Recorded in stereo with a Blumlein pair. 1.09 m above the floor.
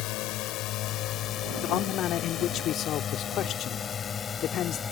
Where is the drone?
40° left; by 4.9 s 20° left.